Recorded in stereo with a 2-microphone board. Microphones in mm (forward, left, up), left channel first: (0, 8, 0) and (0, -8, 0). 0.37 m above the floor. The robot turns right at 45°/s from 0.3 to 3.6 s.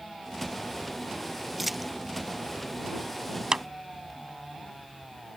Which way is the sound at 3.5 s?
55° right (ahead or behind).